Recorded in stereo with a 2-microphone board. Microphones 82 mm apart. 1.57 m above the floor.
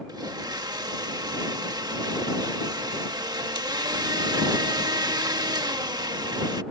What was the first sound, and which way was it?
A blender, 55° right (ahead or behind).